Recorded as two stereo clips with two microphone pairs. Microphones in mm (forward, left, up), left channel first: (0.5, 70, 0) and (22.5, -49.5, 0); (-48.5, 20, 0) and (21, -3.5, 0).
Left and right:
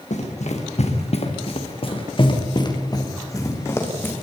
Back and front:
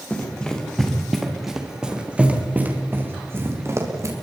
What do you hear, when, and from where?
0.1 s running footsteps: 85° left, 4 m; by 4.1 s 25° left, 4.5 m